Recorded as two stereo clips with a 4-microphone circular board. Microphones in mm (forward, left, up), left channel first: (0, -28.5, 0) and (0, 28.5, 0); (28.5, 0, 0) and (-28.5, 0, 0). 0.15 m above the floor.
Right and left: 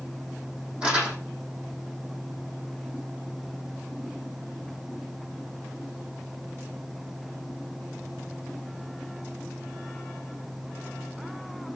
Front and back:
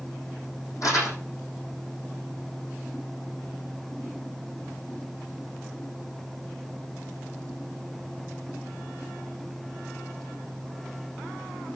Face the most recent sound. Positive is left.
turn(degrees=20)